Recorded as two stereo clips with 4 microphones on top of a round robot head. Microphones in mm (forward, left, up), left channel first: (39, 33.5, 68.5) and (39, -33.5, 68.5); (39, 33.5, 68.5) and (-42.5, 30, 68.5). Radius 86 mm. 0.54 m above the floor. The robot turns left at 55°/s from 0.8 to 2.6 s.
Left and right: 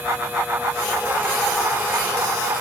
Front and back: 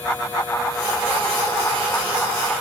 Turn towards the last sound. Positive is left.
No sound to turn to.